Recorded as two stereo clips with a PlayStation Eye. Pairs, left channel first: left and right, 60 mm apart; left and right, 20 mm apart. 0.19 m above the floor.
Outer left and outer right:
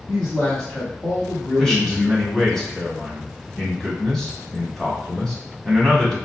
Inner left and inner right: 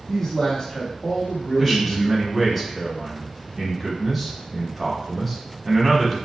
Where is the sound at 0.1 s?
15° left (ahead or behind), 1.0 m.